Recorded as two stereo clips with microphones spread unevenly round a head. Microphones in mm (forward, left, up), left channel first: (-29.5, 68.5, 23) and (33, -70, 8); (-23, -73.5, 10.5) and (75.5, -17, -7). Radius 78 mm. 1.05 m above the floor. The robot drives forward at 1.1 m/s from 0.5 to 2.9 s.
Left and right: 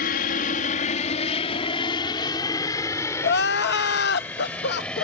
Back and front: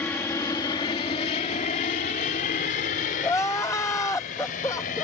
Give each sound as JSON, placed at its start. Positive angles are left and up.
{"t": 0.0, "sound": "an aircraft", "azimuth_deg": 130}
{"t": 3.2, "sound": "crying", "azimuth_deg": 135}